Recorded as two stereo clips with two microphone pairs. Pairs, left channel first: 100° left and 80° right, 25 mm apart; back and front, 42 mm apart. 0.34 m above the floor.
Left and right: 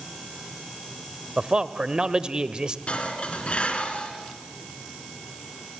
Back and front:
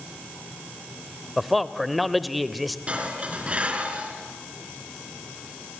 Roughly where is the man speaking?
Right.